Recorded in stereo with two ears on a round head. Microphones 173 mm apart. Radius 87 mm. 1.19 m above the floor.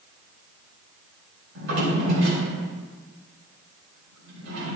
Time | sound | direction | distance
1.6 | a drawer | 80° right | 4 m